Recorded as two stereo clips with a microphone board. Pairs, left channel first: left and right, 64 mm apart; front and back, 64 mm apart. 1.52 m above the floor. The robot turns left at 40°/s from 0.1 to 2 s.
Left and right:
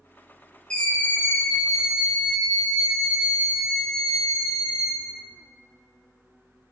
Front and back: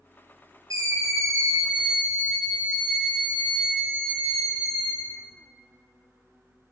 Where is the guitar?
No guitar in this recording.